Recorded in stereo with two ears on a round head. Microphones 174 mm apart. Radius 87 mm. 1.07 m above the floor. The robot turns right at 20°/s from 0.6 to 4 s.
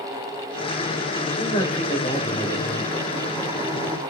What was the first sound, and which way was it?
A man speaking, 135° left.